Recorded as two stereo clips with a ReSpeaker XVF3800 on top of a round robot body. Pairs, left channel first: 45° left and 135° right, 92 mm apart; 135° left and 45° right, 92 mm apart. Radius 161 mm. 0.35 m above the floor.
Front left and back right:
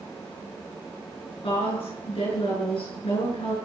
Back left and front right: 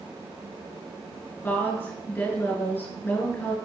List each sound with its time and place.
1.4 s a woman speaking: 65° left, 7 m